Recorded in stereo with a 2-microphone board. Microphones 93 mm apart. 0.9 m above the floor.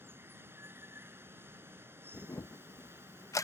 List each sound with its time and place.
0.0 s running water: 25° right (ahead or behind)
2.1 s a camera shutter: 35° left (ahead or behind)